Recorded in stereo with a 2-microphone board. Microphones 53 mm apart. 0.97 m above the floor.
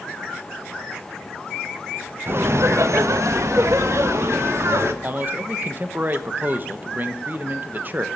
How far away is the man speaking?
About 0.9 m.